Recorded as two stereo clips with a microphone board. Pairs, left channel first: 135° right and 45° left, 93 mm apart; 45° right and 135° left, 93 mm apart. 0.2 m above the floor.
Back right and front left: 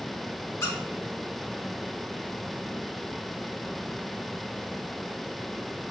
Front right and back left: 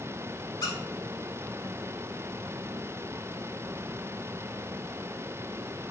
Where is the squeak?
80° right, 0.8 m.